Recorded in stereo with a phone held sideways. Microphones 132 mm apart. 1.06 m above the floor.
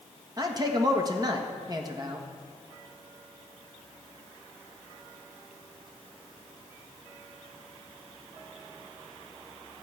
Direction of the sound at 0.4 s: 30° right (ahead or behind).